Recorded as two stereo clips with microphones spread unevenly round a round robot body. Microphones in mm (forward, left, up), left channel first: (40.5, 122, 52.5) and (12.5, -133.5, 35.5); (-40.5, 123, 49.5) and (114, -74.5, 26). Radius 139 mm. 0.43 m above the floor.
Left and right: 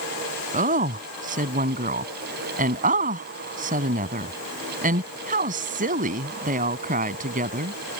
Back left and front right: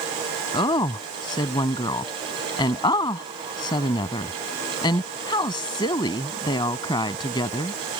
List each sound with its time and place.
0.5 s a woman speaking: 155° right